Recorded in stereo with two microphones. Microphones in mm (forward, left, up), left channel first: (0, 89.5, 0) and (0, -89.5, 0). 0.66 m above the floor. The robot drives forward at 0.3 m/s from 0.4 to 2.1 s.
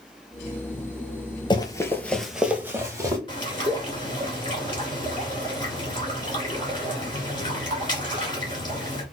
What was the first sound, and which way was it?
Running footsteps, 25° left (ahead or behind).